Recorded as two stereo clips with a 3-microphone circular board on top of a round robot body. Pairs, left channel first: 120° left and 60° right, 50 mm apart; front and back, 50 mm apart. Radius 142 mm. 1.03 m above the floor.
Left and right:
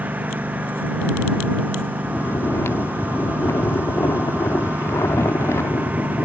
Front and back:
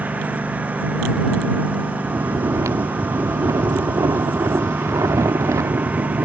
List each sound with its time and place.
0.0 s a lawn mower: 120° right
2.0 s snoring: 160° left